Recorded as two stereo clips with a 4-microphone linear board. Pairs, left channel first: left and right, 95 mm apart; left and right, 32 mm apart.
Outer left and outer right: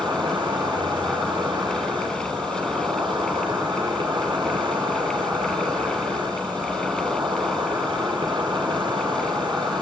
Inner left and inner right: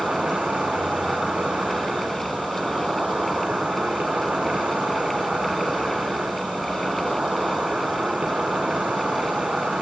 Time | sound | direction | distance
0.0 | an insect | 55° right (ahead or behind) | 1.7 m